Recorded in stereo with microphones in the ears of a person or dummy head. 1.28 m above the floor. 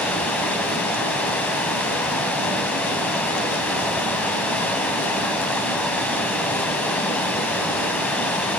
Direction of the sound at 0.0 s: 10° left (ahead or behind).